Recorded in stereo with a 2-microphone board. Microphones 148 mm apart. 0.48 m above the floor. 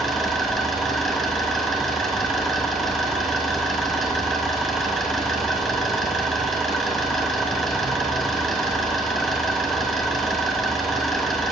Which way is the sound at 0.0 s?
Centre (ahead or behind).